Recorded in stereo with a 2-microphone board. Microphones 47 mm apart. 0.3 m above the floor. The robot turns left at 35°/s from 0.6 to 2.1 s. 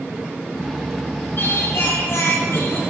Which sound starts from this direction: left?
Singing, at 1.4 s.